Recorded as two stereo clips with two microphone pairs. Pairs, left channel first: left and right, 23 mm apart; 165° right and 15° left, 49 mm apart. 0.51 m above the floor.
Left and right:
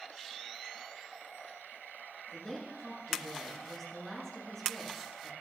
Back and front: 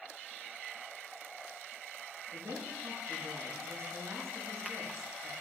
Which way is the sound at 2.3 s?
35° left.